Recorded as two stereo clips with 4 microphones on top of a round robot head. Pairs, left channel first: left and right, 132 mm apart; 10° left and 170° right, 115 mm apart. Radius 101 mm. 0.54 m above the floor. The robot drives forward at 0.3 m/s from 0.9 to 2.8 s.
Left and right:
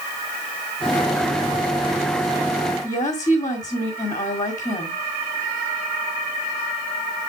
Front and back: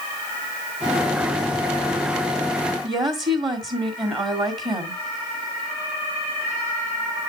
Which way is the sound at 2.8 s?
150° left.